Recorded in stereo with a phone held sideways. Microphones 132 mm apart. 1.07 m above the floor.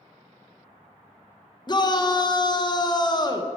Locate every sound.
1.7 s a shout: 30° left (ahead or behind), 0.9 m